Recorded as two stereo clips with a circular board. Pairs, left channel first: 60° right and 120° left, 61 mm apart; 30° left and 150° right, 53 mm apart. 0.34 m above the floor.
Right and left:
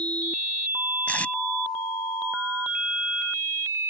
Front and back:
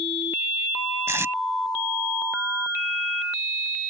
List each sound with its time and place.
1.1 s tape being pulled: 125° right